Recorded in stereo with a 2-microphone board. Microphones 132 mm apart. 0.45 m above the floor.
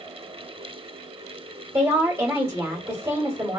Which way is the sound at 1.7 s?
20° right (ahead or behind).